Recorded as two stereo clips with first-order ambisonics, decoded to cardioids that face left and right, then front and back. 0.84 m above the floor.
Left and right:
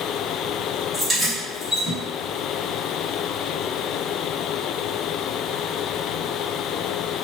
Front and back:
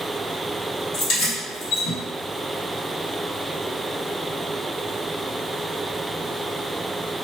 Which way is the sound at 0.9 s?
20° right.